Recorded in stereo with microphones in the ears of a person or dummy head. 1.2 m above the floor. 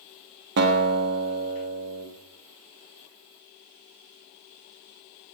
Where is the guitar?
55° right (ahead or behind), 1.5 m.